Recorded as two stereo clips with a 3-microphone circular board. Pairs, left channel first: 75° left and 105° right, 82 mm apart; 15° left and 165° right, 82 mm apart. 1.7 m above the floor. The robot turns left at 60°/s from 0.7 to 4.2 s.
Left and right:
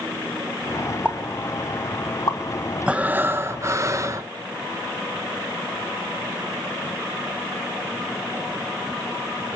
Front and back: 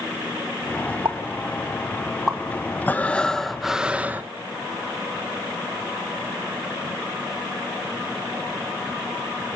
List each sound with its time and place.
1.1 s a pop: 175° right, 1.9 m; by 2.4 s 105° left, 1.9 m
2.9 s breathing: 35° right, 0.9 m; by 4.3 s 115° right, 0.9 m